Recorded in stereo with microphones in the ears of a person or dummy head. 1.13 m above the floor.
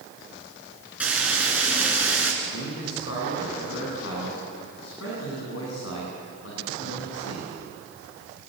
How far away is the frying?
About 4.5 m.